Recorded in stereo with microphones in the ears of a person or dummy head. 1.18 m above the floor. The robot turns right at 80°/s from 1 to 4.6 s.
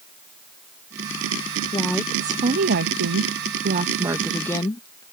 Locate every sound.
1.7 s a woman speaking: 155° left; by 5.0 s 25° left